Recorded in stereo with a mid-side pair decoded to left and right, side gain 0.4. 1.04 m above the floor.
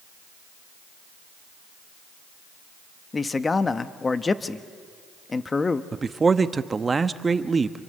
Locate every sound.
3.1 s a man speaking: 35° left, 1.3 m
5.9 s a man speaking: 35° right, 1.1 m